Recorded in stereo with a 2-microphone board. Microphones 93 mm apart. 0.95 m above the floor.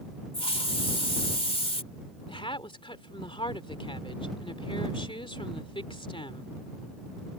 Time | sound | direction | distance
0.3 | a hiss | 80° left | ?
2.3 | a woman speaking | 65° left (ahead or behind) | ?